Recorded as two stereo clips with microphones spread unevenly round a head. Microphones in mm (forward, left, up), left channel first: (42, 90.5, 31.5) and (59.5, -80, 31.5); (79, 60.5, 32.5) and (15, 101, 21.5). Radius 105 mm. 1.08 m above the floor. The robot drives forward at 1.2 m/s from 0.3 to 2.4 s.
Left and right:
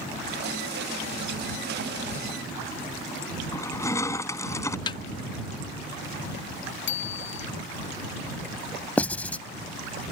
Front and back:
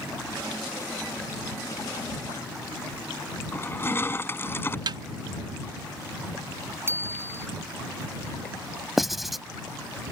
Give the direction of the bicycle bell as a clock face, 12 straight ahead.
9 o'clock.